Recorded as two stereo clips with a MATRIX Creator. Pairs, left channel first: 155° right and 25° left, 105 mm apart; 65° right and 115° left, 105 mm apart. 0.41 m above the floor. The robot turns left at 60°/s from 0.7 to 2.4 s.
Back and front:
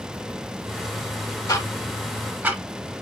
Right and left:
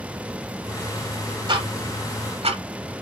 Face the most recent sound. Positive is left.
turn(degrees=100)